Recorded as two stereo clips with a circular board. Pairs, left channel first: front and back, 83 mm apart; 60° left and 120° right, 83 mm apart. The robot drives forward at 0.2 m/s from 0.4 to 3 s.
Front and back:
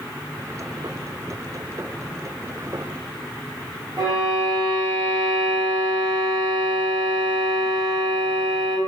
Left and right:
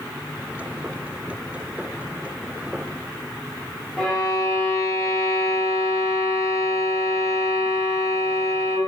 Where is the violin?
150° left, 0.9 m.